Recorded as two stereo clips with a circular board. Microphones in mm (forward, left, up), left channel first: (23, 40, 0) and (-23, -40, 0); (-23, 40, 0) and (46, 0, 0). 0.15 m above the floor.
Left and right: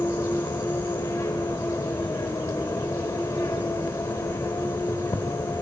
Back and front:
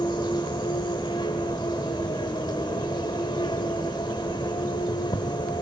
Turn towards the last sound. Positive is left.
turn(degrees=130)